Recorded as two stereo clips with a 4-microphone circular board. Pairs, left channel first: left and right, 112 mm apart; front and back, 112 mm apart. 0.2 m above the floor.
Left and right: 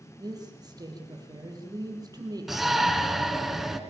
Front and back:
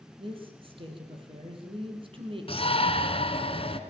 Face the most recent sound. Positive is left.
turn(degrees=0)